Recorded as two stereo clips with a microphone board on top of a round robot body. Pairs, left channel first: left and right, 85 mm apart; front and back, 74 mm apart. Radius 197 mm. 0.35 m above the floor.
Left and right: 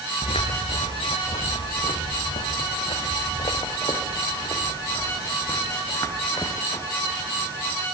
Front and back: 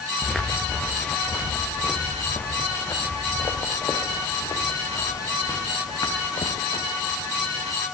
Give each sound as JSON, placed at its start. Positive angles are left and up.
{"t": 0.2, "sound": "footsteps", "azimuth_deg": 85, "distance_m": 4.0}